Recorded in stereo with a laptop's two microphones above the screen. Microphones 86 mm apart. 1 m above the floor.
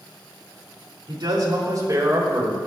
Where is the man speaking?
55° right (ahead or behind), 3.5 m; by 2.6 s 30° right (ahead or behind), 4.5 m.